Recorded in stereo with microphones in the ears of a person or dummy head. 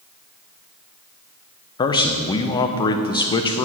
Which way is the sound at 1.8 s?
30° left (ahead or behind).